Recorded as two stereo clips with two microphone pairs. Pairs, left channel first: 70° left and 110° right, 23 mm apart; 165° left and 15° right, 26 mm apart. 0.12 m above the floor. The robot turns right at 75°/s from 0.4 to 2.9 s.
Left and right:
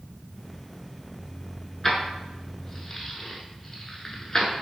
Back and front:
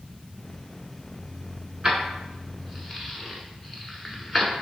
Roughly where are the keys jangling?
Ahead.